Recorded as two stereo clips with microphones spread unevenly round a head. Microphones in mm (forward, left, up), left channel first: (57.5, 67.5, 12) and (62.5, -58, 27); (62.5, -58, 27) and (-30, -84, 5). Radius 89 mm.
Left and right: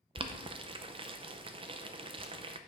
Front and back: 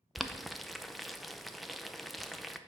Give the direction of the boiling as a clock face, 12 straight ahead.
3 o'clock.